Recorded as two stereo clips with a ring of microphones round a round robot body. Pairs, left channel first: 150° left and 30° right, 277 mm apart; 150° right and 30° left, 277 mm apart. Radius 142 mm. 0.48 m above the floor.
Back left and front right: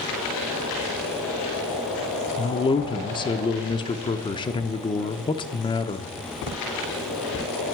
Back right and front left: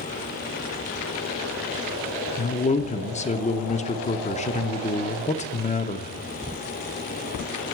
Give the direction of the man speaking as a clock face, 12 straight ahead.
5 o'clock.